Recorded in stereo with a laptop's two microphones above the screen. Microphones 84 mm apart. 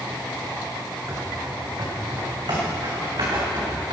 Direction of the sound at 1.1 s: 40° right (ahead or behind).